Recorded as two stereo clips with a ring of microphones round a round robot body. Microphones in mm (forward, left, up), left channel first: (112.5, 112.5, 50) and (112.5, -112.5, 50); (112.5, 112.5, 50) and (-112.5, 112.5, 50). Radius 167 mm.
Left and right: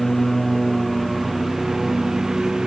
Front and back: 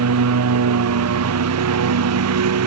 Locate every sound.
0.0 s a lawn mower: straight behind